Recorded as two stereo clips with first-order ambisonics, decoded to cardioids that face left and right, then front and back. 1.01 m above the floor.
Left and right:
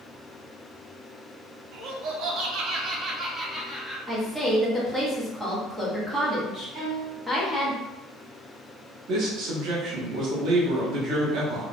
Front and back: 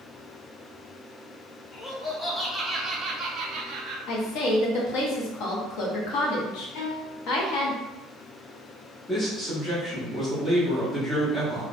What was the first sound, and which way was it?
Laughter, 60° right.